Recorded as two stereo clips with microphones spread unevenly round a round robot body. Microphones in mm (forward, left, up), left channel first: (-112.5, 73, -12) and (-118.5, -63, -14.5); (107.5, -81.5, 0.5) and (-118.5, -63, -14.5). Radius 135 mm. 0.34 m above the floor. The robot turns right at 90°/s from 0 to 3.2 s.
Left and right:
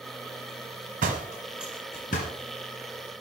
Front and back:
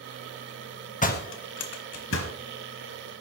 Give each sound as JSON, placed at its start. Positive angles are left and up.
{"t": 1.0, "sound": "a door slam", "azimuth_deg": -60, "distance_m": 1.2}